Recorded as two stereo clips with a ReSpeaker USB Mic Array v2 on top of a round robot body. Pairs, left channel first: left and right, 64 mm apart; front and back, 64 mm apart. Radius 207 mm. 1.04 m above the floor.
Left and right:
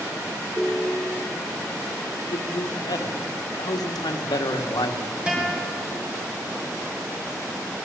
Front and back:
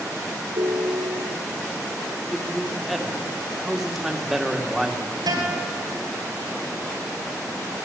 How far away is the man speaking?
About 2.5 m.